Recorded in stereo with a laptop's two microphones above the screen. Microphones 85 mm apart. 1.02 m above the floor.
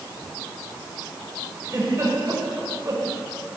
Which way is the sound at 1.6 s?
35° right (ahead or behind).